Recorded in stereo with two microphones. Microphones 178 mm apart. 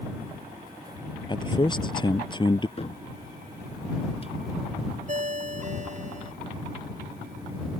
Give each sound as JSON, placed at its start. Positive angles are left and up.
{"t": 1.3, "sound": "a man speaking", "side_deg": 25}
{"t": 2.8, "sound": "a cupboard door", "side_deg": 35}
{"t": 5.1, "sound": "a ringtone", "side_deg": -45}